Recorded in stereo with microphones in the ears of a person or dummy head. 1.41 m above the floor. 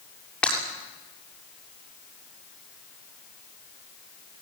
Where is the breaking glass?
10° left (ahead or behind), 7.5 m.